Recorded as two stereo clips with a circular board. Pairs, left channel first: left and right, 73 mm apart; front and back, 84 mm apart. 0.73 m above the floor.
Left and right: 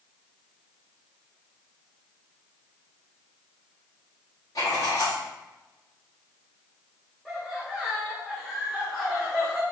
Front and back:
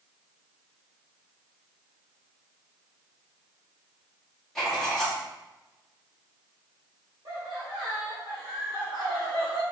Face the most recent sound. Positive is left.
turn(degrees=180)